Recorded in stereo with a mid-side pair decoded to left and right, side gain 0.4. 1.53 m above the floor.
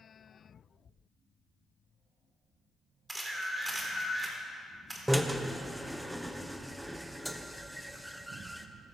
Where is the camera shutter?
15° right, 3.5 m.